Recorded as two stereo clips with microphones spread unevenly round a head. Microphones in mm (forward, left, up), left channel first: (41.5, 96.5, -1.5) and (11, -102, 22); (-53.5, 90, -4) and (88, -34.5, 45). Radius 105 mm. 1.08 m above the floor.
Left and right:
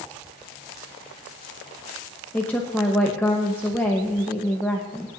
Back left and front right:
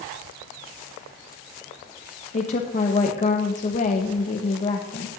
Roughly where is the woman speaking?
Behind left.